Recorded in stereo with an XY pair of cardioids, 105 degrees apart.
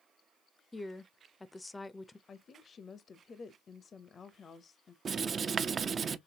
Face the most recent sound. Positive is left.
turn(degrees=-45)